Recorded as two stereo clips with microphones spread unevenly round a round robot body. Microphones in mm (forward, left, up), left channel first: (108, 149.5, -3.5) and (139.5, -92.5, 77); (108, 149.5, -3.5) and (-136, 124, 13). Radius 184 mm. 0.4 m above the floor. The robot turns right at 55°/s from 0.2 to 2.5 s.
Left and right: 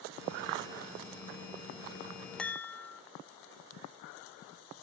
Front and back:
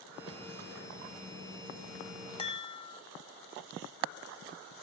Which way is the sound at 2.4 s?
45° left.